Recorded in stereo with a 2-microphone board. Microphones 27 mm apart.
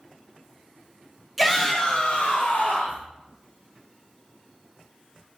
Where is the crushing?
No crushing in this recording.